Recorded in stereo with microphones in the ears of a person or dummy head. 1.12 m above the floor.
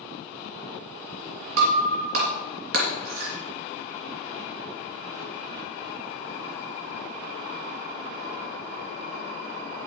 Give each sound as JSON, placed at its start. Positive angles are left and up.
{"t": 1.6, "sound": "breaking glass", "side_deg": -70, "distance_m": 2.5}